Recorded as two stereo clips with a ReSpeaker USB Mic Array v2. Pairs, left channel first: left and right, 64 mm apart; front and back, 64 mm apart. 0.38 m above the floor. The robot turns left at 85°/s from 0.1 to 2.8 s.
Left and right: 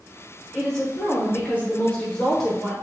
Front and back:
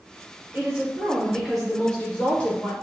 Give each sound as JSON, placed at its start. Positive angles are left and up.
{"t": 0.5, "sound": "a woman speaking", "azimuth_deg": 175, "distance_m": 0.8}